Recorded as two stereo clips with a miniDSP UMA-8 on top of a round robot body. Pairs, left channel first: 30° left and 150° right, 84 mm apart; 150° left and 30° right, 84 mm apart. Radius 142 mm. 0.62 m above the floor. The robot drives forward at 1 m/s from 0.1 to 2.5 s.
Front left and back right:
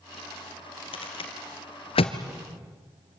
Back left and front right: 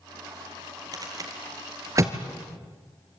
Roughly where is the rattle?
Ahead.